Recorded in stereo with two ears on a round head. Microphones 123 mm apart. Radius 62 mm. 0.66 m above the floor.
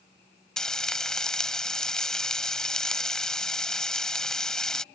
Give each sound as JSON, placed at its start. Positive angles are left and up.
{"t": 0.6, "sound": "frying", "side_deg": 5}